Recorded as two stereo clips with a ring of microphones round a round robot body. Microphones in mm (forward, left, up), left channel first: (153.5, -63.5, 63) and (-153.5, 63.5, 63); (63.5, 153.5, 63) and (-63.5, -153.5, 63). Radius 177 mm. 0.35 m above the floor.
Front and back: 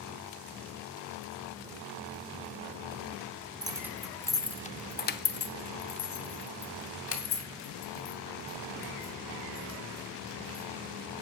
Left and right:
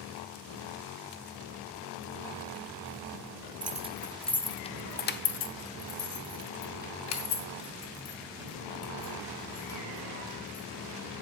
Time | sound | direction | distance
3.6 | keys jangling | 140° right | 0.9 m